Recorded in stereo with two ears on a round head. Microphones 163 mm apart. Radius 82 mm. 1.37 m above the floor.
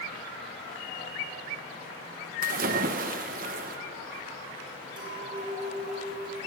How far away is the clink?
About 4 m.